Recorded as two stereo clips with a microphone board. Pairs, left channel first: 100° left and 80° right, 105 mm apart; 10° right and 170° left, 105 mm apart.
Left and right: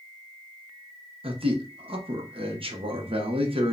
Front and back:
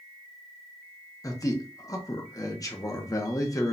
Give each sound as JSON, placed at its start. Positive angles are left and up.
{"t": 1.2, "sound": "a man speaking", "azimuth_deg": -70, "distance_m": 0.8}